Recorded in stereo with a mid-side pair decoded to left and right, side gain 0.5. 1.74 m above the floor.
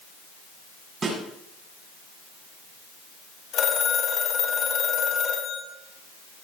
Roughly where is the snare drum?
Ahead right.